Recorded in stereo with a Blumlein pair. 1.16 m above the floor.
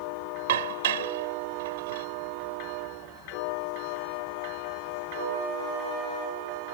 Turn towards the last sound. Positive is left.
turn(degrees=-55)